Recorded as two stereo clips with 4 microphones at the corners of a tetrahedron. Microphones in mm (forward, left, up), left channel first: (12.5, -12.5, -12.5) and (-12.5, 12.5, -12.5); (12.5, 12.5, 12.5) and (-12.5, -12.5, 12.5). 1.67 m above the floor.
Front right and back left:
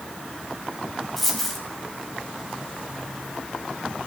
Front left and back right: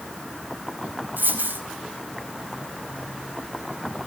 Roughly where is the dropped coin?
Behind right.